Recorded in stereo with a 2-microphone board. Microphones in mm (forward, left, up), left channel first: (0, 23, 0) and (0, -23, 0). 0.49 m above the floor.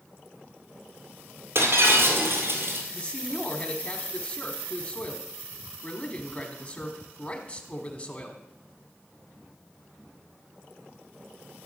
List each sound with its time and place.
1.6 s breaking glass: 65° right (ahead or behind), 2 m
2.9 s a man speaking: 30° left (ahead or behind), 1.3 m